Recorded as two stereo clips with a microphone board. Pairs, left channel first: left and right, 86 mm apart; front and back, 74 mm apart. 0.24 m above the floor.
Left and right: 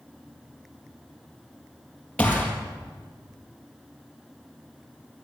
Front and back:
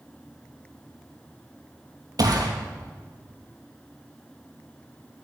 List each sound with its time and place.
2.2 s a gunshot: 165° left, 3.5 m